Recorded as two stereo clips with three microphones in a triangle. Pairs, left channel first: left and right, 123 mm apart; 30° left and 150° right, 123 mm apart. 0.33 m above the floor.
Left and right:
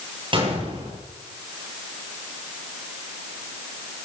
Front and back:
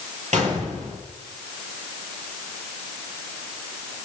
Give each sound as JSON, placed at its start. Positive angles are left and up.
{"t": 0.3, "sound": "a gunshot", "azimuth_deg": -135, "distance_m": 9.5}